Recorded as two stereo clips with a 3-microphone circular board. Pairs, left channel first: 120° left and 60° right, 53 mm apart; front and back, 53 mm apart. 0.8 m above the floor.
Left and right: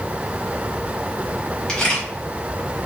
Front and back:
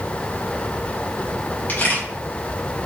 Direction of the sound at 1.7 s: 45° left.